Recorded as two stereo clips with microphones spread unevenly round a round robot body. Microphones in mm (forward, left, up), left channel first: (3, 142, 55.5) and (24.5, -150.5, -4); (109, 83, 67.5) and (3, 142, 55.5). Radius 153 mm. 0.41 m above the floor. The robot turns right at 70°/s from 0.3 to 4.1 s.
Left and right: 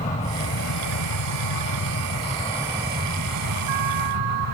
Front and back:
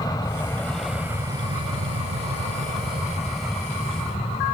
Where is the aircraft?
25° left; by 4.5 s 70° right.